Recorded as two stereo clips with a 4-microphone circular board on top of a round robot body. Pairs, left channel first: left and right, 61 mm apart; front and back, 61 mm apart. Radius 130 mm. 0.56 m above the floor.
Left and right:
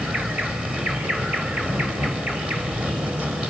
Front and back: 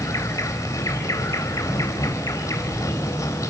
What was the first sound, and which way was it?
An insect, 25° right.